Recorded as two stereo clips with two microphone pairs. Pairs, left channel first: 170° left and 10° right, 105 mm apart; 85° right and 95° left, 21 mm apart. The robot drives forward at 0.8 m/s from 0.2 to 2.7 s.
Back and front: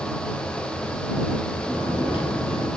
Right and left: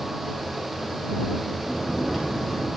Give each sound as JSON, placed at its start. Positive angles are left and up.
{"t": 1.6, "sound": "snoring", "azimuth_deg": -165, "distance_m": 4.0}